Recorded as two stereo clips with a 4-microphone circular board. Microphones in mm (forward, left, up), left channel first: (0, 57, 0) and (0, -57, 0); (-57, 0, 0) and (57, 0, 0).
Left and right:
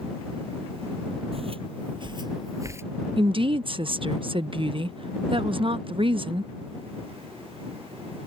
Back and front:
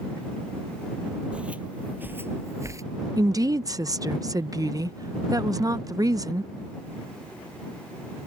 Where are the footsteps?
80° right; by 2.8 s 40° right.